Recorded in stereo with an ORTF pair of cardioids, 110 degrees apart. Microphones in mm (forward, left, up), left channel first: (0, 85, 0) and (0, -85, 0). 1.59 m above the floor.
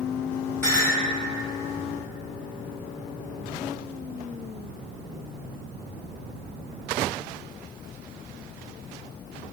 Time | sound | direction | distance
0.6 | a clink | 10° left | 1.7 m